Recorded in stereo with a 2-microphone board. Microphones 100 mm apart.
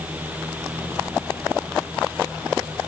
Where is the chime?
No chime in this recording.